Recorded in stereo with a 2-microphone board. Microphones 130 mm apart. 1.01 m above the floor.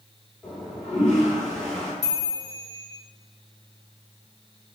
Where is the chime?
65° right (ahead or behind), 1.9 m.